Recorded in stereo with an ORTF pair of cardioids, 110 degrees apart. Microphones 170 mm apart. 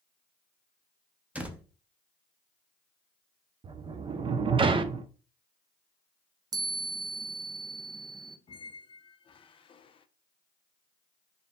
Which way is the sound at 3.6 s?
30° right.